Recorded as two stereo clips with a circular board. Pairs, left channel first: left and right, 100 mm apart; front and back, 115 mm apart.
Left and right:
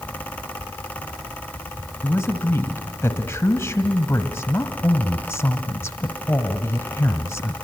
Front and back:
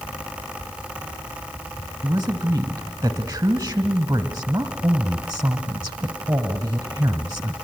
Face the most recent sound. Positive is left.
turn(degrees=140)